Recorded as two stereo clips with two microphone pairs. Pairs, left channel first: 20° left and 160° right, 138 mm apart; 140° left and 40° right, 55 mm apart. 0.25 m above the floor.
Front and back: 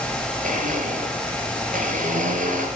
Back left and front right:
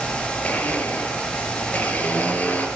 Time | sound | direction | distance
0.4 | a blender | 165° right | 4.5 m